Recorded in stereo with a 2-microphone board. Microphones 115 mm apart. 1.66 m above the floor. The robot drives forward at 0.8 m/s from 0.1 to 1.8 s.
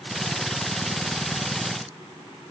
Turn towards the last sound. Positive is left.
No sound to turn to.